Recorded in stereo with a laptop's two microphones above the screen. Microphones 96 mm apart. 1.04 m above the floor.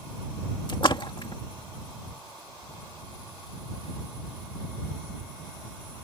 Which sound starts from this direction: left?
A splash, at 0.7 s.